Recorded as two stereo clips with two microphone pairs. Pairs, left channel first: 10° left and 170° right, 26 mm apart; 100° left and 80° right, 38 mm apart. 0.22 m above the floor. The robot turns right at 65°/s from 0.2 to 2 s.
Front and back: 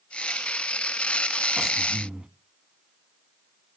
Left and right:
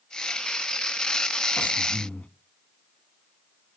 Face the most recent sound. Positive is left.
turn(degrees=155)